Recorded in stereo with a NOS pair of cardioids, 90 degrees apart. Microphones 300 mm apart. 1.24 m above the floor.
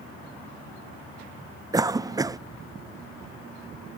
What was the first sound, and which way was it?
A cough, 15° right.